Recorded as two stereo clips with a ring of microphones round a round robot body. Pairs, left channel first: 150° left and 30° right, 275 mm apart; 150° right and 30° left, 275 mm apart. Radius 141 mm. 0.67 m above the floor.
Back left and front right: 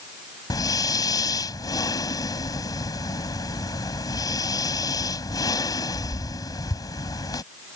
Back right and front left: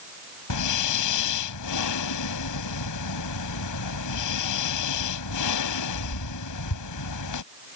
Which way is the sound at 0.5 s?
135° right.